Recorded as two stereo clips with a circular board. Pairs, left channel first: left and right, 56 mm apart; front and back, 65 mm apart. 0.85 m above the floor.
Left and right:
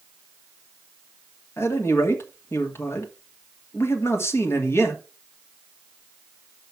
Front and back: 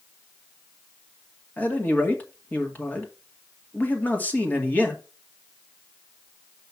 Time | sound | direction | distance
1.6 | a man speaking | 60° left | 2 m